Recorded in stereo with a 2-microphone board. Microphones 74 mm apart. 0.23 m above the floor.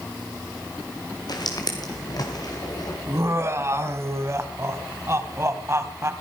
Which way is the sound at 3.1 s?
35° right (ahead or behind).